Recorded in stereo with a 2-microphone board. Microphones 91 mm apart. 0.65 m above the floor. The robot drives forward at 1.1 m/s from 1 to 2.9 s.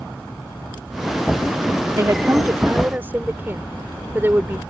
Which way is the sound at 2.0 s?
35° right (ahead or behind).